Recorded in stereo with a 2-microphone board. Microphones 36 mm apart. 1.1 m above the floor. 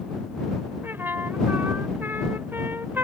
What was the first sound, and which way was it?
A trumpet, 75° right (ahead or behind).